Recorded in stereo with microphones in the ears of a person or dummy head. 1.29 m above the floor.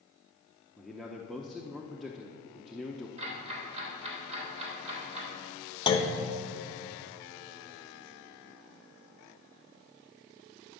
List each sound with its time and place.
0.8 s a man speaking: 5° left (ahead or behind), 0.7 m
3.2 s ticking: 30° right (ahead or behind), 3 m
5.9 s a clunk: 25° left (ahead or behind), 0.9 m